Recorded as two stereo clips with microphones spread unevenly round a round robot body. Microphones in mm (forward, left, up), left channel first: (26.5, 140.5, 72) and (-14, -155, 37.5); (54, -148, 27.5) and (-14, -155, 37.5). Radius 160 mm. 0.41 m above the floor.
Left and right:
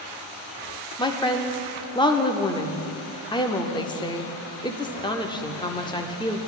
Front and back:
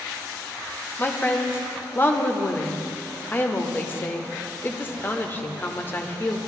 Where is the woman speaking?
5° left, 0.9 m.